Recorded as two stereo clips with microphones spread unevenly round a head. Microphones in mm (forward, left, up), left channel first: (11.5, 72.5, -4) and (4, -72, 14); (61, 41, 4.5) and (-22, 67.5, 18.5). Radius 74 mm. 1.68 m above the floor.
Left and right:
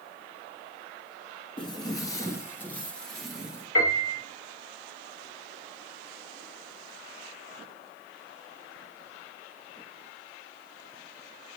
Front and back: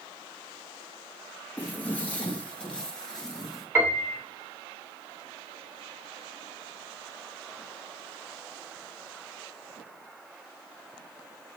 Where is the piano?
95° left, 2.5 m.